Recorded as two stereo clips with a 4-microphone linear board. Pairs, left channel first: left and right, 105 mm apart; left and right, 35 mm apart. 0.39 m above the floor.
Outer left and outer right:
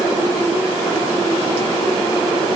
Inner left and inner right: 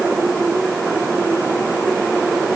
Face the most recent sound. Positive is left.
No sound to turn to.